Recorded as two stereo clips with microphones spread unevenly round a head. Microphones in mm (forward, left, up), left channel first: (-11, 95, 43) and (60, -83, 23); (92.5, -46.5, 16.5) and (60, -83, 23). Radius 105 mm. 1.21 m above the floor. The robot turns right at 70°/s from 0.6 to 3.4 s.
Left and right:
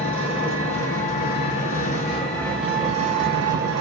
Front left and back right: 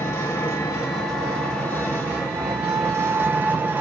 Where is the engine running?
60° left, 0.8 m; by 3.8 s 105° right, 0.8 m.